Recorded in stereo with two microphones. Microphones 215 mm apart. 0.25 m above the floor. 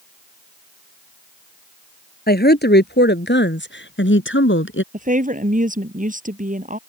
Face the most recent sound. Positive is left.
turn(degrees=-40)  # may be behind; listen again after turning